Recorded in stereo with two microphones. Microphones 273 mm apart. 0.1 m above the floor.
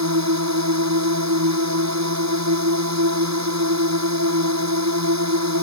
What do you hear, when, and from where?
0.0 s a drone: 70° right (ahead or behind)